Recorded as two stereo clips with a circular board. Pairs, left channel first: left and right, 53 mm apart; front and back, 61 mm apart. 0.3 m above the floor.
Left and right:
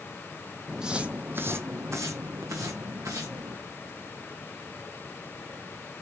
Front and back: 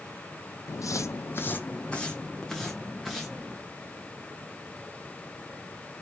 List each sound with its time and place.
0.7 s footsteps: 5° right, 0.6 m; by 3.6 s 95° right, 1.5 m